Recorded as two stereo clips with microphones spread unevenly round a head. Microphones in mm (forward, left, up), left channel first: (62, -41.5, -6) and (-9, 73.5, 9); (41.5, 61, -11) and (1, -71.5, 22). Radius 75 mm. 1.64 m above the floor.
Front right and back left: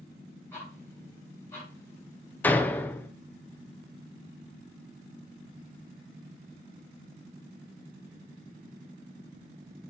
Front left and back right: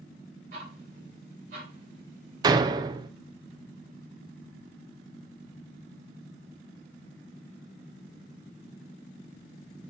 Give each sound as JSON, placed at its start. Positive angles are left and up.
{"t": 0.5, "sound": "ticking", "azimuth_deg": -135, "distance_m": 3.0}
{"t": 2.4, "sound": "a door slam", "azimuth_deg": -140, "distance_m": 0.5}